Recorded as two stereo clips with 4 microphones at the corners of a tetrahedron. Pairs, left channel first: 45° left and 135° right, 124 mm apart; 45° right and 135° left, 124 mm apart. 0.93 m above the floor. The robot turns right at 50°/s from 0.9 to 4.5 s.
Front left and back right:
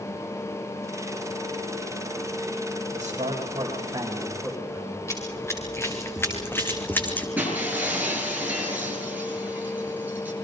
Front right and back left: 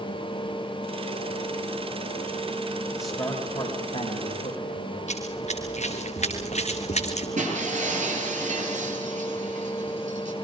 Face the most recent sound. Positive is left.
turn(degrees=150)